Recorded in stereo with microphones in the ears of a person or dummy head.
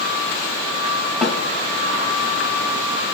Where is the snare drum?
5° left (ahead or behind), 0.6 m.